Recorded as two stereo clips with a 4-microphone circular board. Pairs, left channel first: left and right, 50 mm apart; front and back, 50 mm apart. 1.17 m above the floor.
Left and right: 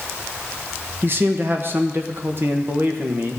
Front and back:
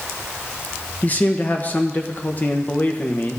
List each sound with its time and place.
1.0 s a man speaking: 50° right, 1.2 m